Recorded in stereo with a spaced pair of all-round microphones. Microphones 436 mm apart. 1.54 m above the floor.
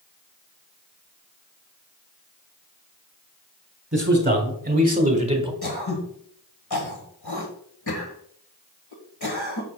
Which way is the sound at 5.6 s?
60° left (ahead or behind).